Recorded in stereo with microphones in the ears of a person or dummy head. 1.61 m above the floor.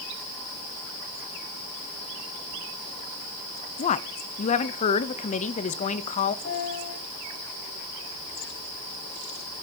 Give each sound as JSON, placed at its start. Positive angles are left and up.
{"t": 3.8, "sound": "a woman speaking", "side_deg": 40, "distance_m": 0.8}
{"t": 6.5, "sound": "a piano", "side_deg": 70, "distance_m": 4.5}